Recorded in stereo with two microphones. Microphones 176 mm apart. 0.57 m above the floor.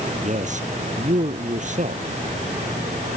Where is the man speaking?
45° right (ahead or behind).